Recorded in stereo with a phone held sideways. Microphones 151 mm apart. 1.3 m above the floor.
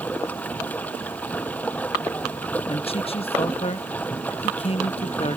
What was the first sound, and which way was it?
Running water, 10° left (ahead or behind).